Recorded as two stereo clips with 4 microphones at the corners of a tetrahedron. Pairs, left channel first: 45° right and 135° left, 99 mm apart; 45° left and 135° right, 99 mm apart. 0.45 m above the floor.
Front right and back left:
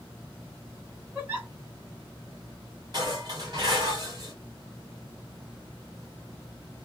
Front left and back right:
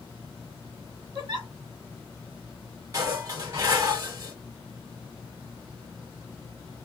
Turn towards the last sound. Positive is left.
turn(degrees=170)